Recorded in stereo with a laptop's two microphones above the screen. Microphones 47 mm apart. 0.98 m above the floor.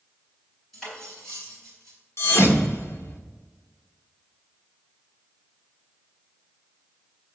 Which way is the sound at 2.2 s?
65° left (ahead or behind).